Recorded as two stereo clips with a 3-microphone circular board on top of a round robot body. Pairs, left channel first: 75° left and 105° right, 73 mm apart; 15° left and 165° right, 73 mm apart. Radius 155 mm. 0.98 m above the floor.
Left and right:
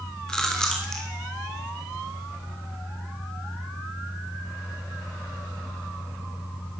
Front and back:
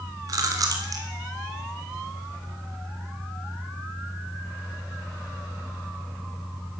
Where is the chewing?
160° left, 3 m.